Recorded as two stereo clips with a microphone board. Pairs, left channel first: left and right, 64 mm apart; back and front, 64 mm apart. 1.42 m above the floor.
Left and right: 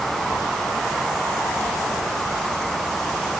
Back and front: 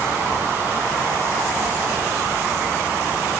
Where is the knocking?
I don't hear knocking.